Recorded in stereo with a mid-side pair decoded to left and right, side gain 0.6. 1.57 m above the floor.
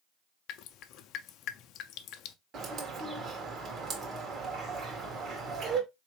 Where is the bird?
45° right, 1.5 m.